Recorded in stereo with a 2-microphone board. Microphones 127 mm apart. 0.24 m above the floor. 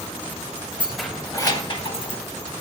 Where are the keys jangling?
10° right (ahead or behind), 0.8 m; by 2.2 s 50° left (ahead or behind), 1.5 m.